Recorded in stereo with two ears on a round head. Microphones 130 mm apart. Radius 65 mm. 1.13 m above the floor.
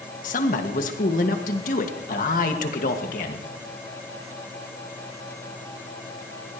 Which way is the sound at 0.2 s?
60° left (ahead or behind).